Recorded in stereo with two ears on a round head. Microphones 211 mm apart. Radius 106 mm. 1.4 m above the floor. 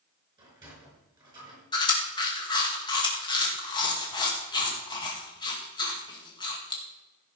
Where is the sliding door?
20° right (ahead or behind), 5.5 m.